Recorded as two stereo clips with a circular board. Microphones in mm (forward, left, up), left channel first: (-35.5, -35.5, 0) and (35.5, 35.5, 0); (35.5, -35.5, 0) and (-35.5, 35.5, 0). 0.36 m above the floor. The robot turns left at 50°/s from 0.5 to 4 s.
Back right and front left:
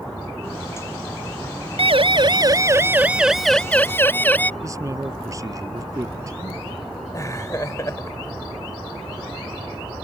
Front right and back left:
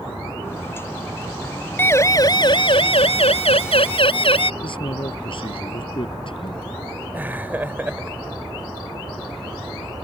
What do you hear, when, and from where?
1.8 s a siren: 25° left; by 4.5 s 60° right
4.6 s a man speaking: 10° right
7.1 s laughter: 165° right